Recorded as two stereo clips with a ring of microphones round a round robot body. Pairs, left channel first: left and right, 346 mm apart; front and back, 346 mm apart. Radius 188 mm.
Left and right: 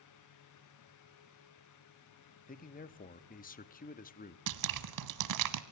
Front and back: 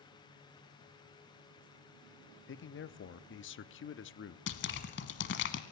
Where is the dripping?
60° right, 1.0 m.